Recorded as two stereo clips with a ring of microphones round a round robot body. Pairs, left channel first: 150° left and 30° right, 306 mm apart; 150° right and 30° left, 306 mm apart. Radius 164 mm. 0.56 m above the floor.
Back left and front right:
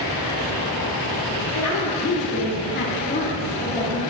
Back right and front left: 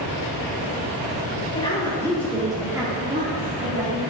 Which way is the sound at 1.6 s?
140° left.